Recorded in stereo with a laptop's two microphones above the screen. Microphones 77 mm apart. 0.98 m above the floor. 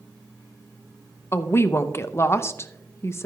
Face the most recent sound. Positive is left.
turn(degrees=35)  # may be behind; listen again after turning